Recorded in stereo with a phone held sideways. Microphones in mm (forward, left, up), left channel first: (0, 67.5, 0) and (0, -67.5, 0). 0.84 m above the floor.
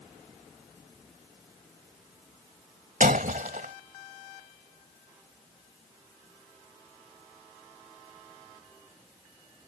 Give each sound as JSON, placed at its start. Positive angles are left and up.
{"t": 3.0, "sound": "breaking glass", "side_deg": -85}